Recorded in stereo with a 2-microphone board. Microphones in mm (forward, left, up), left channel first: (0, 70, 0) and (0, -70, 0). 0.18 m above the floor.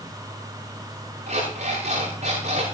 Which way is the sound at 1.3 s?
70° right (ahead or behind).